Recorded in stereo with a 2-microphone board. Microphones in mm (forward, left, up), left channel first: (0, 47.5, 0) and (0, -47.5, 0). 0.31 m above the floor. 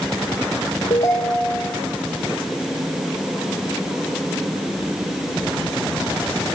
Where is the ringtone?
80° left, 5.5 m.